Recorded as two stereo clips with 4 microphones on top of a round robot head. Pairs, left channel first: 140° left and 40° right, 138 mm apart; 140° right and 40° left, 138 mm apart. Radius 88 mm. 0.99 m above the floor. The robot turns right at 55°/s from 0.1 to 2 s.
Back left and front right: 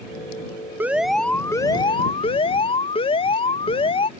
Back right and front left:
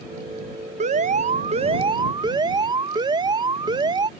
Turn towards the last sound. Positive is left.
turn(degrees=95)